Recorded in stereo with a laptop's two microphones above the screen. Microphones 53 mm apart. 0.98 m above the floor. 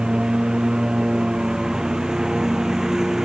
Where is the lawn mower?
15° right (ahead or behind); by 3.3 s 10° right (ahead or behind).